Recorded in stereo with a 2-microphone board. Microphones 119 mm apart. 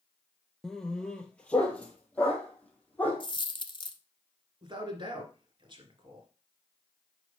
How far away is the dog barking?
About 0.7 m.